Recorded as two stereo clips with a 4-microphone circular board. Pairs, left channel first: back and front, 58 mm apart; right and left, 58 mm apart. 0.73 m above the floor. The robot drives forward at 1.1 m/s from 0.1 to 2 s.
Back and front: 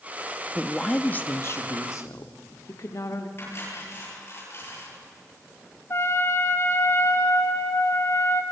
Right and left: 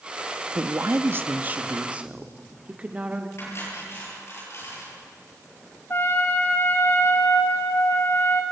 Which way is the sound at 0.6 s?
75° left.